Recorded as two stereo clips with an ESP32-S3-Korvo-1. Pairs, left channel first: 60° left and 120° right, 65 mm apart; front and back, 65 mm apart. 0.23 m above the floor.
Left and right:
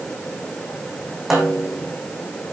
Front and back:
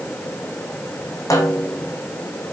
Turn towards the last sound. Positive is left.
turn(degrees=-35)